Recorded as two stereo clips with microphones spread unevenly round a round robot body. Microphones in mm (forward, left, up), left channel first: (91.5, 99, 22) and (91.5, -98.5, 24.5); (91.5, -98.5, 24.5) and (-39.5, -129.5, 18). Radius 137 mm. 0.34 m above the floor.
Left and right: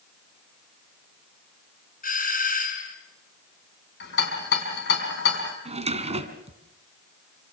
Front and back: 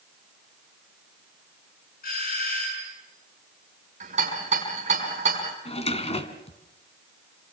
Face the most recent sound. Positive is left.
turn(degrees=-30)